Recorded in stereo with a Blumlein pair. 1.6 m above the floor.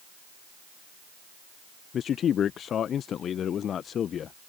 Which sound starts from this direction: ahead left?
A man speaking, at 1.9 s.